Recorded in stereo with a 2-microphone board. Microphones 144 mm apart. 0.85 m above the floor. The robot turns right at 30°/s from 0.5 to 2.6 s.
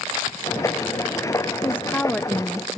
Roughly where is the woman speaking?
Centre.